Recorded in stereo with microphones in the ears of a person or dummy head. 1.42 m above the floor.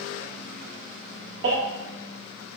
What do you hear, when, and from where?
1.4 s a baby crying: 70° right (ahead or behind), 1.0 m